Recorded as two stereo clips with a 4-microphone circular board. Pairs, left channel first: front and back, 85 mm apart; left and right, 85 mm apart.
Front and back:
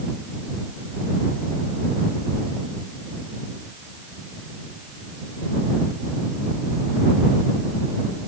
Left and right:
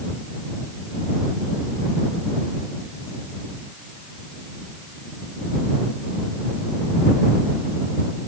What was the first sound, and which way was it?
Only background noise.